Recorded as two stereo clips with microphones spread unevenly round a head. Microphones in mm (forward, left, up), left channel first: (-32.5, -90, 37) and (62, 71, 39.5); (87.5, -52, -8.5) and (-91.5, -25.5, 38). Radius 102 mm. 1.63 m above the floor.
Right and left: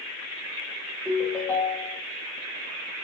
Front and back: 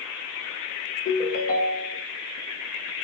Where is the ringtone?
45° right, 0.6 m.